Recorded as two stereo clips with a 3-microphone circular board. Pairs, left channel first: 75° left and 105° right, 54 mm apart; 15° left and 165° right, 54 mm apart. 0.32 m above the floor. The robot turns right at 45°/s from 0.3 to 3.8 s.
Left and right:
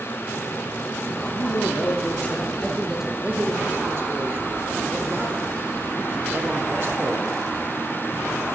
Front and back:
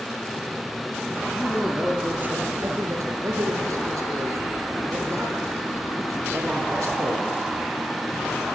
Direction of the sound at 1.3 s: 100° left.